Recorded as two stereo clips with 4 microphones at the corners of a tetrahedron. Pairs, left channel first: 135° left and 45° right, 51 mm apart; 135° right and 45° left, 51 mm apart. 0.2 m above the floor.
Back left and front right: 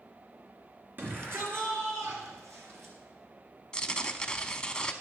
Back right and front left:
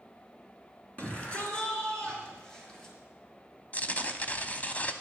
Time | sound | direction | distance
1.0 | a shout | 80° right | 3 m
3.7 | tearing paper | 165° right | 0.7 m